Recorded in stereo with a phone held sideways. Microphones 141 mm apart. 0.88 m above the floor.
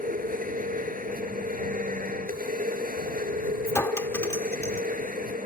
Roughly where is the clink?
Centre.